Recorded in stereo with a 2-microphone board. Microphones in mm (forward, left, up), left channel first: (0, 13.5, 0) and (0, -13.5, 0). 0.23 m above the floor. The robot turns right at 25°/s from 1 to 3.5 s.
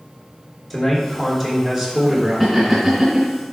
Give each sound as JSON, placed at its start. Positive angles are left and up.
{"t": 0.7, "sound": "a man speaking", "azimuth_deg": 180, "distance_m": 3.0}
{"t": 2.4, "sound": "laughter", "side_deg": -10, "distance_m": 2.5}